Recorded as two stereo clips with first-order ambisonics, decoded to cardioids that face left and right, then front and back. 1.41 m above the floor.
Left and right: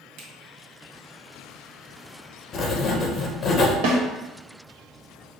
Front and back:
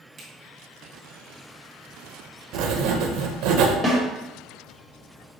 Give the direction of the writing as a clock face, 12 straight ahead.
7 o'clock.